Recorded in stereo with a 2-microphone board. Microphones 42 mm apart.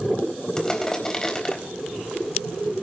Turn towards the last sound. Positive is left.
turn(degrees=20)  # may be behind; listen again after turning